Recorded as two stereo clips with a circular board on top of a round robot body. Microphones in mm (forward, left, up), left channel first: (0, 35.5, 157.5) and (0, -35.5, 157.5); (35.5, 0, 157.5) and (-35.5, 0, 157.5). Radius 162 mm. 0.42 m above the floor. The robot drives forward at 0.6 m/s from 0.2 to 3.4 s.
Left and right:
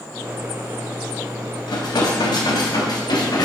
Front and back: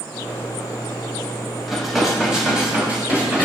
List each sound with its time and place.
1.7 s dishes clattering: 90° left, 2.5 m; by 3.5 s 115° left, 3 m